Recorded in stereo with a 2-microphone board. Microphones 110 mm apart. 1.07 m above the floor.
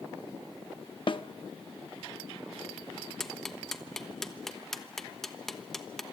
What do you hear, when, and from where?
1.1 s a snare drum: 50° left (ahead or behind), 0.8 m
3.2 s ticking: 5° left (ahead or behind), 1.1 m